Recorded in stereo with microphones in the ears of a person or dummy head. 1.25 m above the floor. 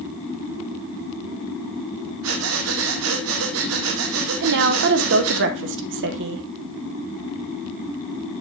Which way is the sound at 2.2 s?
75° right (ahead or behind).